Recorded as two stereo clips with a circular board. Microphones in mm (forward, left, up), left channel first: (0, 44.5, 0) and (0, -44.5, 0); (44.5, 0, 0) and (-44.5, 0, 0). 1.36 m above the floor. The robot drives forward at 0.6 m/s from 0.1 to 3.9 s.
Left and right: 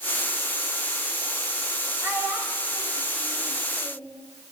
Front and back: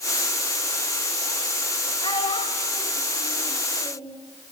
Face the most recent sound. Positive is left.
turn(degrees=-30)